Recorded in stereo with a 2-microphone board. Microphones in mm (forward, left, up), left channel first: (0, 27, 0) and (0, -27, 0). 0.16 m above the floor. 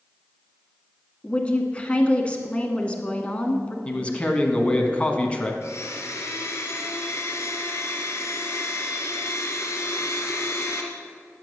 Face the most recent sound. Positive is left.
turn(degrees=55)  # may be behind; listen again after turning